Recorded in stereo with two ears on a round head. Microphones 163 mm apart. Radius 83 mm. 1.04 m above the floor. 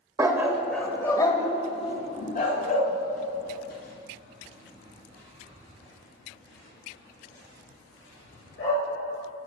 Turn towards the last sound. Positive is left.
turn(degrees=60)  # may be behind; listen again after turning